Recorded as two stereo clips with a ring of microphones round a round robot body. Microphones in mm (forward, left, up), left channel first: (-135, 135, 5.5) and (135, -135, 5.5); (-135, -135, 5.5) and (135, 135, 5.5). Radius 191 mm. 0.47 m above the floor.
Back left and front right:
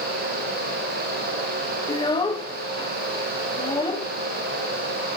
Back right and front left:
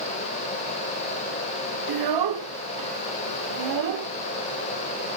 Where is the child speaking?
60° left, 1.1 m.